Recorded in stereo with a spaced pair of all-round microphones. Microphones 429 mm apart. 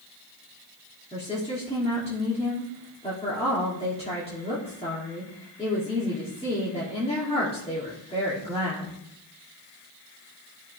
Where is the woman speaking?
15° left (ahead or behind), 3 m.